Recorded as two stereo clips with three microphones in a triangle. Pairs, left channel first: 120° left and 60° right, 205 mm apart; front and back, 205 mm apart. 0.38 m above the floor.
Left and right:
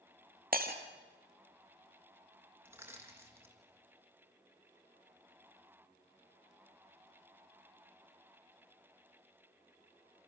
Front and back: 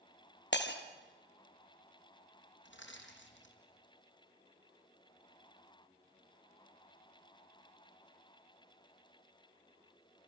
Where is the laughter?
I don't hear laughter.